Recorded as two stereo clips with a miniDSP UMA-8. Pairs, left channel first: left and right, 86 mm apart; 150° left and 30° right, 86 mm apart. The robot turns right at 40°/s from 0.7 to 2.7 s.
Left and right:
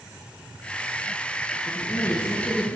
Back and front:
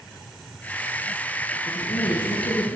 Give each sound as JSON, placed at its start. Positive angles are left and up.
{"t": 1.7, "sound": "a woman speaking", "azimuth_deg": 130, "distance_m": 5.0}